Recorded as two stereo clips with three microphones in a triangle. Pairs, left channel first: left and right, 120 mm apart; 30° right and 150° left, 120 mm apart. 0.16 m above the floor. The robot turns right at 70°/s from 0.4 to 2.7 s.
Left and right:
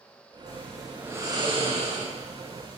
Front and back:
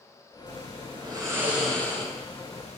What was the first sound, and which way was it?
Snoring, 155° left.